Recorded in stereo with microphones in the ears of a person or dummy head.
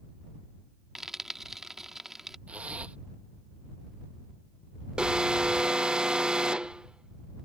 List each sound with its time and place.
0.9 s frying: centre (ahead or behind)
2.5 s a zipper: 10° right (ahead or behind)
5.0 s an alarm: centre (ahead or behind)